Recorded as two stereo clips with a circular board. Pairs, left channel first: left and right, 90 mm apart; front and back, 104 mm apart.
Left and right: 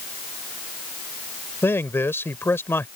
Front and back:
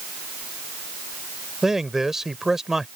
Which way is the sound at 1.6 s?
100° left.